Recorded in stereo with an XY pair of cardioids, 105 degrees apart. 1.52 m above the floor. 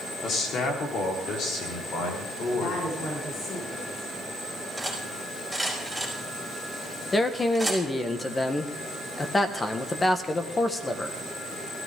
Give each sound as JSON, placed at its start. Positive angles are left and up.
{"t": 0.2, "sound": "a man speaking", "azimuth_deg": 60, "distance_m": 4.0}
{"t": 2.5, "sound": "a woman speaking", "azimuth_deg": 60, "distance_m": 5.0}
{"t": 4.8, "sound": "cutlery clinking", "azimuth_deg": 5, "distance_m": 4.5}
{"t": 7.1, "sound": "a man speaking", "azimuth_deg": 25, "distance_m": 1.6}